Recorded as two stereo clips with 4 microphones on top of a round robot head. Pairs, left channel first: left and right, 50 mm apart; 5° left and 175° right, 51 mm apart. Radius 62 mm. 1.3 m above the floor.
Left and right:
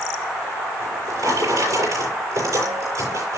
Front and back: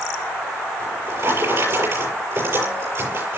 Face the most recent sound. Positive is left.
turn(degrees=-125)